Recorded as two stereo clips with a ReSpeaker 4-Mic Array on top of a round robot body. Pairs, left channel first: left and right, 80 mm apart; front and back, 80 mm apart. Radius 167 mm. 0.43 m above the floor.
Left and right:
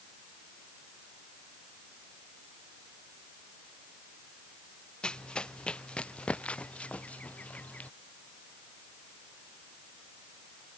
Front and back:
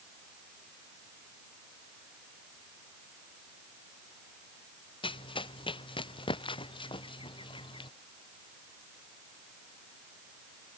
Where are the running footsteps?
10° left; by 7.9 s 15° left.